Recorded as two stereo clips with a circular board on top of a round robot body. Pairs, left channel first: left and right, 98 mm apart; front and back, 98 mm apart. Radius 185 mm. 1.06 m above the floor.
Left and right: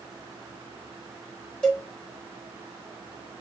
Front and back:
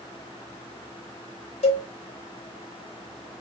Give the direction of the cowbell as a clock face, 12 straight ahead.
12 o'clock.